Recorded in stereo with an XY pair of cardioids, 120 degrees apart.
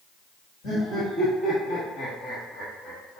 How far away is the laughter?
About 2 m.